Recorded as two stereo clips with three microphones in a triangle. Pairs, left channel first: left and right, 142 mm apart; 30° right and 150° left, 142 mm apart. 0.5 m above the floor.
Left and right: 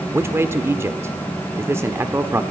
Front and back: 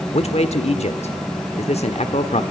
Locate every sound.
0.1 s a man speaking: 25° right, 1.2 m